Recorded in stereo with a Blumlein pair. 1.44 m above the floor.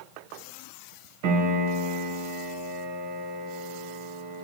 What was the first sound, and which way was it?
A piano, 45° right.